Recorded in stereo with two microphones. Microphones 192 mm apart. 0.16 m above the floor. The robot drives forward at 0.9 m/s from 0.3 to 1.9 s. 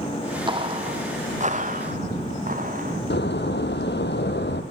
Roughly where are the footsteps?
Right.